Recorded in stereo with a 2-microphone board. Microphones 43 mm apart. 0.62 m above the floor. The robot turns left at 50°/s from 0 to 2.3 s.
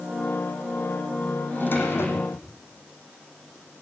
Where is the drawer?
135° left, 8 m; by 2.5 s 95° left, 8 m.